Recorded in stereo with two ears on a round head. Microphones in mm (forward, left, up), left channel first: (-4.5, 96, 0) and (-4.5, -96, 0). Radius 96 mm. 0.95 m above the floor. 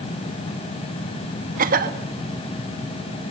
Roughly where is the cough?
Right.